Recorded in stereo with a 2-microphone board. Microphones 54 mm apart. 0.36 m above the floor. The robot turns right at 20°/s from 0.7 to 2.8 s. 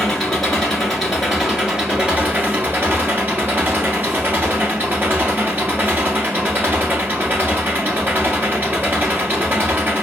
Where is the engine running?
175° left, 1.4 m; by 10.0 s 140° right, 1.4 m.